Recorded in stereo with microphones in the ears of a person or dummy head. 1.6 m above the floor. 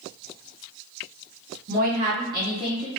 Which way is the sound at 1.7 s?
45° right (ahead or behind).